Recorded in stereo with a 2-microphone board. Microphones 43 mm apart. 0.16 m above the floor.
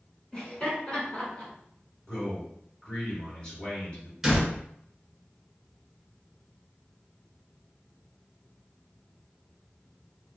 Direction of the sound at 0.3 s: 20° left (ahead or behind).